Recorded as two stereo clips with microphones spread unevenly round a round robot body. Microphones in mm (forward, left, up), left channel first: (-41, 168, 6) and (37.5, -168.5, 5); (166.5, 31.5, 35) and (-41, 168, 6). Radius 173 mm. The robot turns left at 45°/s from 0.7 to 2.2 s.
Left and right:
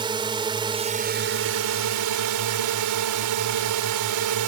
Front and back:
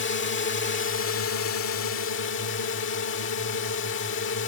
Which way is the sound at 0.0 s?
5° right.